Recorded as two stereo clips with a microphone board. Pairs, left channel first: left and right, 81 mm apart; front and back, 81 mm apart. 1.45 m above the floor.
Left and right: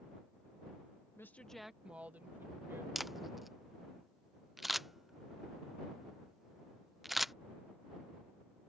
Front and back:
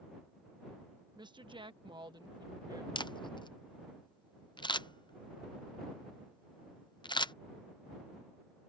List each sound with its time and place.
1.2 s a woman speaking: 150° left; by 2.9 s 150° right
3.0 s a camera shutter: straight ahead